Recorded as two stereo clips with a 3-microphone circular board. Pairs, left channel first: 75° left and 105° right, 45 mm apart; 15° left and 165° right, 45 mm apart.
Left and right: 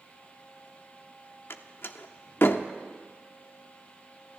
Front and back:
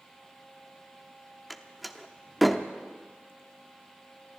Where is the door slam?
105° left, 0.7 m.